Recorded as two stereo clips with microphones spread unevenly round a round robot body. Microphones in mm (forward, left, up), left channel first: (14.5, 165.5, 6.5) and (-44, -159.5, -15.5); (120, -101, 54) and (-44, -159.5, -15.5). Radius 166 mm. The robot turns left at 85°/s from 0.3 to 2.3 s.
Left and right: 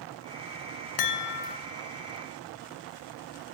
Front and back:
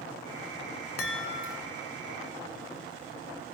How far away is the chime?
About 2 m.